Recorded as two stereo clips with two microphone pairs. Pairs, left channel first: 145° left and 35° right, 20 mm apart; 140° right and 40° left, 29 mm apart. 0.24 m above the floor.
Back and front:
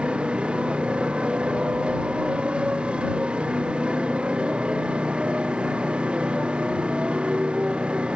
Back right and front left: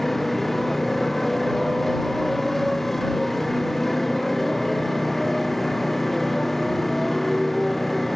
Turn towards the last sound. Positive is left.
turn(degrees=-60)